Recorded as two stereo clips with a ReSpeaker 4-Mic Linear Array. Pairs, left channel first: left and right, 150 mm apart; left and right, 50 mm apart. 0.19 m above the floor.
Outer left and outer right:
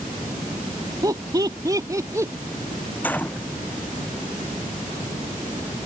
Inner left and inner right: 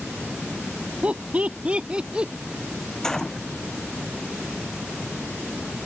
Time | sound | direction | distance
1.0 | laughter | 25° right (ahead or behind) | ?
3.0 | a gunshot | 10° left (ahead or behind) | ?